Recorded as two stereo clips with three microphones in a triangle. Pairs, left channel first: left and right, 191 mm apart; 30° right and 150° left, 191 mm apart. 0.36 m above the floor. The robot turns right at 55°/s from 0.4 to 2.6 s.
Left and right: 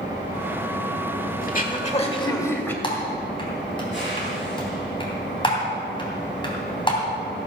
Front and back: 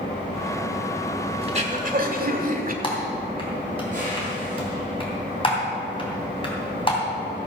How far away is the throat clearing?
About 1.4 m.